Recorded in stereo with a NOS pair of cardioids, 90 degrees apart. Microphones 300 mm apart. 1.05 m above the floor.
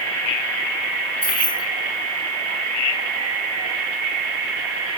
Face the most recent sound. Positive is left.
turn(degrees=5)